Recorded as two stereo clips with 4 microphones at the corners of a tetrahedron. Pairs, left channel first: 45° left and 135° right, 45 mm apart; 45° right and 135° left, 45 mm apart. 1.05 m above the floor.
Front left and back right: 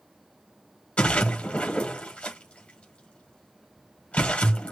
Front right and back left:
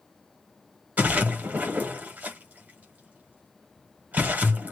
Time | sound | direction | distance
1.0 | a splash | 100° left | 1.0 m